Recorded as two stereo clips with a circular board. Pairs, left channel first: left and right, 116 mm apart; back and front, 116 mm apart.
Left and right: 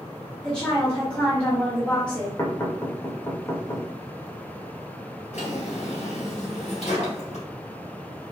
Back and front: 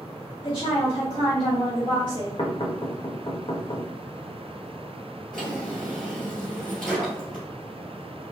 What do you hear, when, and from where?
0.4 s a woman speaking: 170° left, 1.5 m
2.4 s knocking: 150° left, 0.9 m
5.3 s a drawer: 95° left, 2 m